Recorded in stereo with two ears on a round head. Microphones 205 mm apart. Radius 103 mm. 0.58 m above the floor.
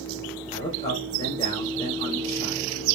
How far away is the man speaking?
About 2 m.